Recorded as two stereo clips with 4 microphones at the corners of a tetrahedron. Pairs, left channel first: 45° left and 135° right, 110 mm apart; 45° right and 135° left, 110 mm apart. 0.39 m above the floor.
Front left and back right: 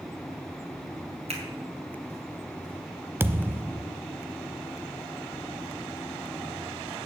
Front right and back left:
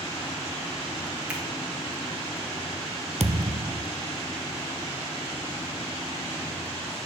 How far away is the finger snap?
About 3 m.